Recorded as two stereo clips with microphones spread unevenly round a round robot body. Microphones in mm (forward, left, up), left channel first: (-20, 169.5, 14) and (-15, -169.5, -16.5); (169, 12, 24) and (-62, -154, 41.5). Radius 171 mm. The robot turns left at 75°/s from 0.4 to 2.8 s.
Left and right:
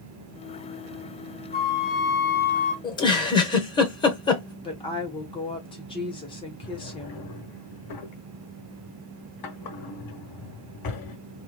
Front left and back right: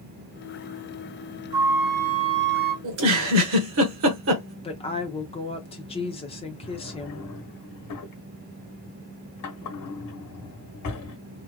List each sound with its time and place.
1.5 s a flute: 150° left, 1.7 m; by 2.7 s 55° left, 1.7 m
2.8 s a giggle: 170° left, 1.0 m
4.6 s a woman speaking: 25° left, 0.8 m
6.6 s a drawer: 60° left, 1.0 m